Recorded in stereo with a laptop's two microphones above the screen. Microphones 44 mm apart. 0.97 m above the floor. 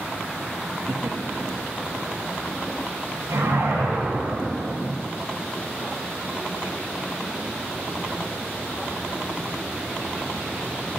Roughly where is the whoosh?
Right.